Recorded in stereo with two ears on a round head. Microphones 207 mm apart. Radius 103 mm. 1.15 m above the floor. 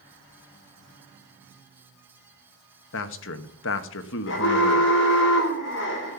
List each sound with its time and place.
2.9 s a man speaking: 60° left (ahead or behind), 1.3 m
4.3 s an alarm: 55° left (ahead or behind), 4.5 m